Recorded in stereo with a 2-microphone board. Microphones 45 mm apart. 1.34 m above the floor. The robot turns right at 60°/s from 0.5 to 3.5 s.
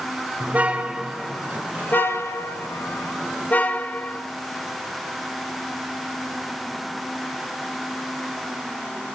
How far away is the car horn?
About 2.5 m.